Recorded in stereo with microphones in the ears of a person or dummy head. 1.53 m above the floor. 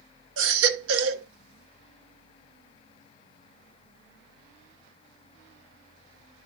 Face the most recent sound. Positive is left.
turn(degrees=-70)  # may be behind; listen again after turning